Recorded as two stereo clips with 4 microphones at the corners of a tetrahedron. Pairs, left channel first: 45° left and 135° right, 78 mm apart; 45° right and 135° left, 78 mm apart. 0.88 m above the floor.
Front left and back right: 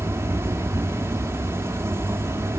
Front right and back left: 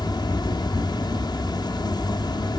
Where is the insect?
75° right, 0.8 m.